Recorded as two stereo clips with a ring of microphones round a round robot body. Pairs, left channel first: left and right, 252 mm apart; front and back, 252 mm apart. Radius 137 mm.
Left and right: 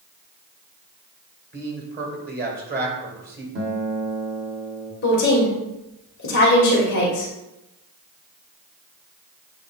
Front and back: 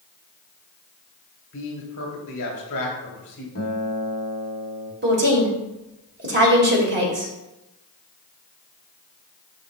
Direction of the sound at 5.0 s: 140° left.